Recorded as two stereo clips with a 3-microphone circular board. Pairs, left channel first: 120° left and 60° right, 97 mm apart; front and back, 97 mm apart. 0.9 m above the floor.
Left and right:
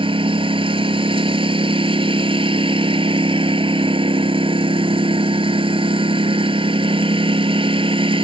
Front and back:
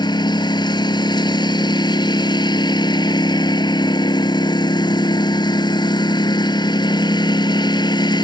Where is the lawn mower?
40° right.